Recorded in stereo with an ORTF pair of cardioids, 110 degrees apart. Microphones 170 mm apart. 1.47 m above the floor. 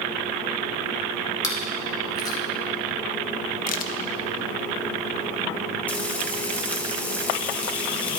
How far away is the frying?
About 1.4 m.